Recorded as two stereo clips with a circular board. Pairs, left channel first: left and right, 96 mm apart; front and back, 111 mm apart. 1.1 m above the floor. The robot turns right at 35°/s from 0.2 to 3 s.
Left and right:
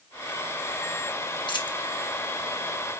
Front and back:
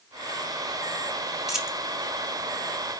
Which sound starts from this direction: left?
A dropped coin, at 1.5 s.